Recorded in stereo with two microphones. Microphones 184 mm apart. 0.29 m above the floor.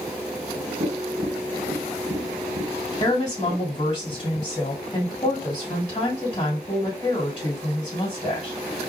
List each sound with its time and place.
0.8 s tapping: 60° right (ahead or behind), 0.9 m
3.0 s a woman speaking: 25° left (ahead or behind), 2 m